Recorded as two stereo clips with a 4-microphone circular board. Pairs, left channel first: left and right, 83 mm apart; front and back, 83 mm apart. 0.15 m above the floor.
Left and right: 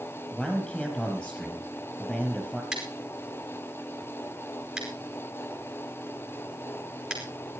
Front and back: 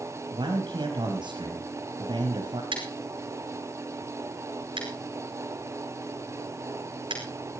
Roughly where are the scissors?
Behind.